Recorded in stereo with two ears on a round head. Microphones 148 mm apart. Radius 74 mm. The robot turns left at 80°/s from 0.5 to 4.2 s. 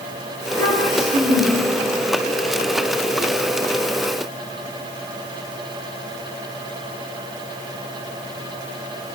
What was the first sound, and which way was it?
A child speaking, 170° left.